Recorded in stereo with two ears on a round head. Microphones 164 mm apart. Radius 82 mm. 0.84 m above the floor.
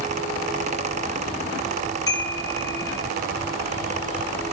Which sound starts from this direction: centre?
A chime, at 2.1 s.